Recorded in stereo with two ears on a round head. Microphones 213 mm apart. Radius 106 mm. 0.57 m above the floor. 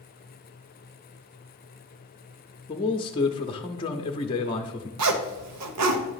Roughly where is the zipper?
Right.